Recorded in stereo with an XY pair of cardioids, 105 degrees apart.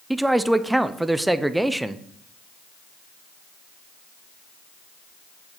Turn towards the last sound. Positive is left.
turn(degrees=-10)